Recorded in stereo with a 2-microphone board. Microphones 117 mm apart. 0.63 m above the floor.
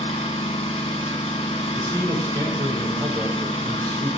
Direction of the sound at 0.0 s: 80° left.